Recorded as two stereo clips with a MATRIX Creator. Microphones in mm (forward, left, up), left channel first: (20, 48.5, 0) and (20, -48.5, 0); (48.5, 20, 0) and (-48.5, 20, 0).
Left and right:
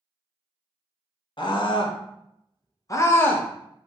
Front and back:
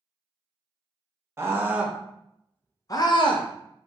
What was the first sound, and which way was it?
A scream, 120° left.